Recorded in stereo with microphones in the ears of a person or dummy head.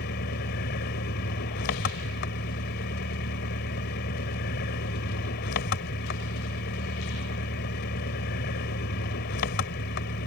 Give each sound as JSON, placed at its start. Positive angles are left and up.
{"t": 0.0, "sound": "an engine running", "side_deg": 50}